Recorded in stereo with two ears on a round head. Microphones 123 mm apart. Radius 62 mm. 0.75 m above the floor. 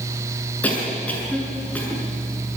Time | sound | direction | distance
0.6 | a cough | 10° left (ahead or behind) | 7.5 m